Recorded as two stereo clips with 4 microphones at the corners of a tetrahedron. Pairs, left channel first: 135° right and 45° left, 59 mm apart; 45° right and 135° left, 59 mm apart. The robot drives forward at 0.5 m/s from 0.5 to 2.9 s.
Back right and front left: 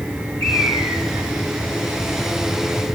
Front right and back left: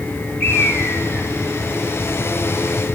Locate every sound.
0.4 s a bird: 35° left, 3.5 m